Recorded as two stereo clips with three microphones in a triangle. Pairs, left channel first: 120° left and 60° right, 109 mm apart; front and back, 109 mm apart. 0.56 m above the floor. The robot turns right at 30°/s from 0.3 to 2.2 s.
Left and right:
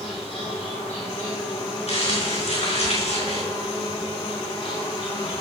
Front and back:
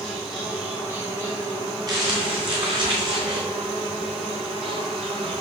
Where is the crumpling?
130° left, 5 m; by 3.4 s 140° left, 5 m.